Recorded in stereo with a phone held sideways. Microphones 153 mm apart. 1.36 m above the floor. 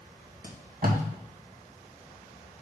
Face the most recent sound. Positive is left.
turn(degrees=-65)  # may be behind; listen again after turning